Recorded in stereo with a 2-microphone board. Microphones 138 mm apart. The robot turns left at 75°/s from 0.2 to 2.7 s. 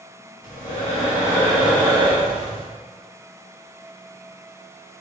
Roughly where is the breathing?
Left.